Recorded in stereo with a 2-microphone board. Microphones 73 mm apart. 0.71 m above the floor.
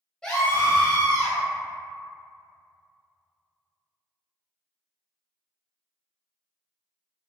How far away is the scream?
About 1.0 m.